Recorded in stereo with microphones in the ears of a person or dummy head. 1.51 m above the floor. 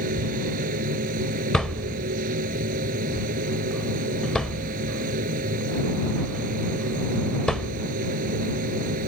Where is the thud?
Centre (ahead or behind).